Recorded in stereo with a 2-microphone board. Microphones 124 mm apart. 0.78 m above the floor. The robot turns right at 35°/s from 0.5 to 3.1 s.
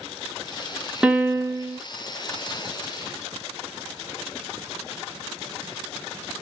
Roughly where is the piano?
Centre.